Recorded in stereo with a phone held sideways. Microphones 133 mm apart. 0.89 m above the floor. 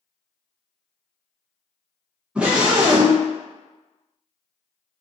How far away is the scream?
About 0.8 m.